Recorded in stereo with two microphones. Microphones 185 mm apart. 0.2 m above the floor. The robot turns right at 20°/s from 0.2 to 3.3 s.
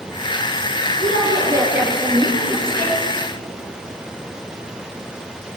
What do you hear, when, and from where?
1.0 s a woman speaking: 30° right, 3.5 m; by 3.0 s 15° left, 3.5 m